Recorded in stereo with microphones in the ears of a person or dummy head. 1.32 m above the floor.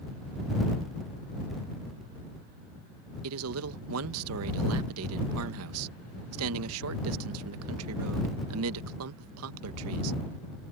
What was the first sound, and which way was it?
A man speaking, 75° right (ahead or behind).